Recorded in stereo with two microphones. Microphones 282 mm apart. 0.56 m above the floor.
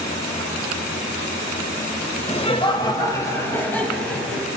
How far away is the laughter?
About 2 m.